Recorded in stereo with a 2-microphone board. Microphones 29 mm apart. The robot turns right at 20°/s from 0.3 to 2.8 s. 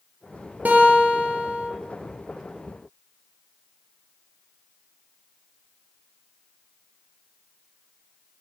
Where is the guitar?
70° right (ahead or behind), 3 m; by 1.7 s 75° right (ahead or behind), 3 m.